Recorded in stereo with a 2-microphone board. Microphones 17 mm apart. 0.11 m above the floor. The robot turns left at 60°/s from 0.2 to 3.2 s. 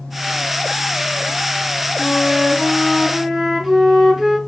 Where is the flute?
80° left, 3 m; by 4.4 s 10° left, 3 m.